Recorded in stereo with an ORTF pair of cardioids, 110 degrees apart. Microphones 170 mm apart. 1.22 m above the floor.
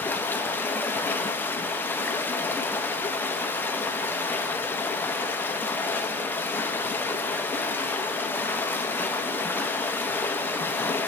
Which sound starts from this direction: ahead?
Running water, at 0.0 s.